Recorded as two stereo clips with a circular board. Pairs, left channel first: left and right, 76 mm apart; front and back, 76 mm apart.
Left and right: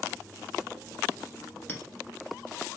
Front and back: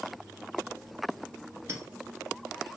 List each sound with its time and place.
1.7 s a clink: 155° left, 1.2 m